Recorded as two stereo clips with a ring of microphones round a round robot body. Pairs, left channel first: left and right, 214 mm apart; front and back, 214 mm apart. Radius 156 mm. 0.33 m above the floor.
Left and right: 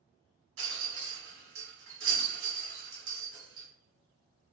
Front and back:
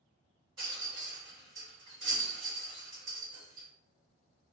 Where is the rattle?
105° right, 1.2 m.